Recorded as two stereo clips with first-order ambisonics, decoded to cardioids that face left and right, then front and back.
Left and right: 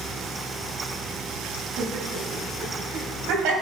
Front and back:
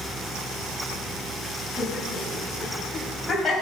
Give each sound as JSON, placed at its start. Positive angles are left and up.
{"t": 1.8, "sound": "laughter", "azimuth_deg": -105, "distance_m": 4.0}